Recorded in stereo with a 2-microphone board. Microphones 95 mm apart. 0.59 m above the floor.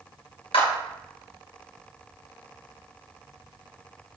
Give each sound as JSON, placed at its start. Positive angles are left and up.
{"t": 0.5, "sound": "a clap", "side_deg": 75, "distance_m": 3.0}